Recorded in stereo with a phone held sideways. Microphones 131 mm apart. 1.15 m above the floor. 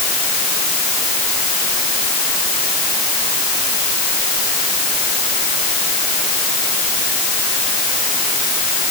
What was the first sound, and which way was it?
Only background noise.